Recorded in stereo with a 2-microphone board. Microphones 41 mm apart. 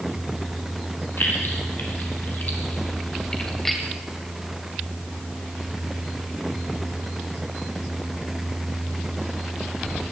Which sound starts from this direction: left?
Keys jangling, at 1.2 s.